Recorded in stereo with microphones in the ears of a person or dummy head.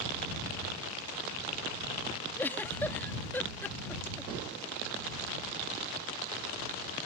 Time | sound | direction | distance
2.4 | a giggle | 10° left (ahead or behind) | ?